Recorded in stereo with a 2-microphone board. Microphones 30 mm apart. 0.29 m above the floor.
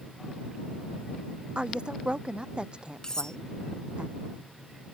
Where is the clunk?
No clunk in this recording.